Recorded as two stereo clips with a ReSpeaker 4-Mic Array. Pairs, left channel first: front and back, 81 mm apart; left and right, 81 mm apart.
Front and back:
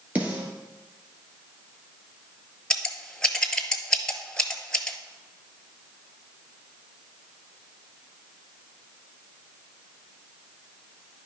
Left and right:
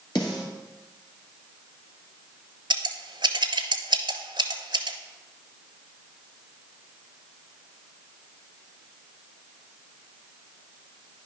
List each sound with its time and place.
0.1 s a snare drum: 110° left, 1.9 m
2.7 s scissors: 80° right, 0.8 m